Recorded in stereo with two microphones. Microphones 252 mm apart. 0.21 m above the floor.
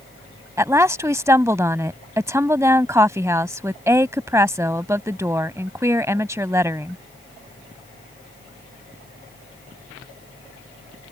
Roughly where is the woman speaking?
Centre.